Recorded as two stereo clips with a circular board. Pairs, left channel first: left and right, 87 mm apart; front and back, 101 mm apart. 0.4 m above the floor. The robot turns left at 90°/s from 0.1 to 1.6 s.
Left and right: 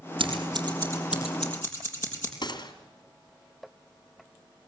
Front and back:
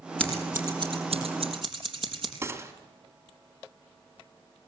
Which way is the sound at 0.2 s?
80° right.